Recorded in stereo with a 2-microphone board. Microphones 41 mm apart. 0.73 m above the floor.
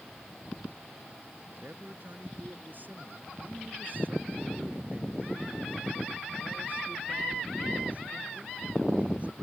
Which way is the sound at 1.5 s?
50° right (ahead or behind).